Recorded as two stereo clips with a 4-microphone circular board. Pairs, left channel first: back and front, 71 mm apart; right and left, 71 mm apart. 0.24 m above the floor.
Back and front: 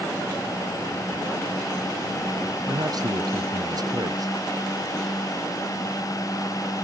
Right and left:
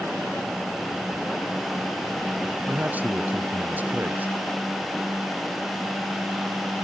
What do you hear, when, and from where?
2.7 s a man speaking: 25° left